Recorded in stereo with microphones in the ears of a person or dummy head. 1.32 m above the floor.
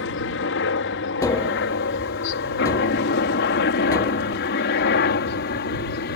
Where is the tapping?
20° left (ahead or behind).